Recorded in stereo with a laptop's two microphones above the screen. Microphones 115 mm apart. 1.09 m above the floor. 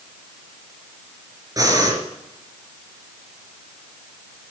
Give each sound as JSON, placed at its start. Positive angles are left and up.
{"t": 1.6, "sound": "breathing", "side_deg": -30, "distance_m": 2.5}